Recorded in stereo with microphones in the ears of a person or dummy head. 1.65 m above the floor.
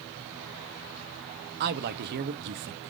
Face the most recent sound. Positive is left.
turn(degrees=-55)  # may be behind; listen again after turning